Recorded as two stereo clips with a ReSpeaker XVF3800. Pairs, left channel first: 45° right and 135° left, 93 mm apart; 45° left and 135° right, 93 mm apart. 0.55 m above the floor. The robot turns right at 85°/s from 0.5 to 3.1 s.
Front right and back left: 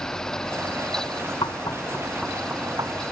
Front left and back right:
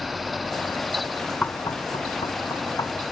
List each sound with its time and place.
1.4 s knocking: 25° right; by 3.0 s 105° left